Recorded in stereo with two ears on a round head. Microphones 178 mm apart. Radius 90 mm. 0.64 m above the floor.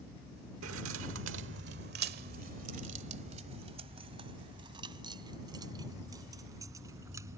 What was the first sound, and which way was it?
Keys jangling, 75° right (ahead or behind).